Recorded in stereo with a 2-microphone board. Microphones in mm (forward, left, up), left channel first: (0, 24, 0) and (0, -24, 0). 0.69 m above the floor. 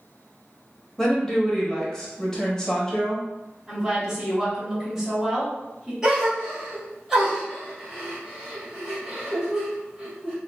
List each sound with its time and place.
1.0 s a woman speaking: 15° left (ahead or behind), 0.8 m
3.7 s a woman speaking: 5° right (ahead or behind), 1.4 m
6.0 s a gasp: 10° right (ahead or behind), 1.2 m